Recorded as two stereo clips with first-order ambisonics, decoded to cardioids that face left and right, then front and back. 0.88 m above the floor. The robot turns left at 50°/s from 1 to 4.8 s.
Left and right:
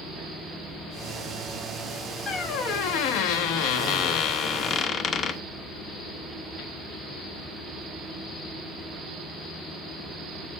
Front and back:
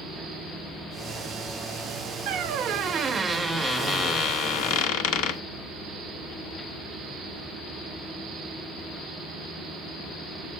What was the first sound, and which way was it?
A squeak, 150° left.